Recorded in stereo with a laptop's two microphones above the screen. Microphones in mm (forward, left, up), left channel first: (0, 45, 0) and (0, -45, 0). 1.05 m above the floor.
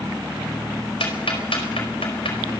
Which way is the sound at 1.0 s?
80° left.